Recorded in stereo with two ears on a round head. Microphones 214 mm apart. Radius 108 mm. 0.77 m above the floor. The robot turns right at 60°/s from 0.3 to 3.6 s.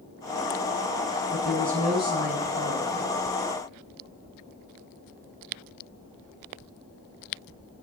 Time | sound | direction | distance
1.3 | a woman speaking | 15° right | 8 m